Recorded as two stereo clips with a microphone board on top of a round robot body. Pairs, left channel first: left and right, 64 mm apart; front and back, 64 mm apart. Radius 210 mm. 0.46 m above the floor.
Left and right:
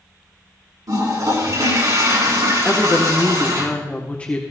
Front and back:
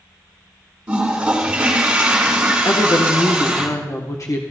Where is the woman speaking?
25° left, 1.8 m.